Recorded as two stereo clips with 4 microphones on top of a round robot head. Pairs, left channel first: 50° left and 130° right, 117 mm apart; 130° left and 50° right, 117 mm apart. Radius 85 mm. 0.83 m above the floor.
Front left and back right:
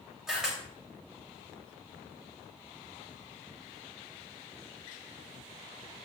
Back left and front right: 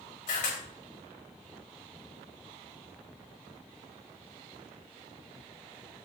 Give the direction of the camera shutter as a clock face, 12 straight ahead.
7 o'clock.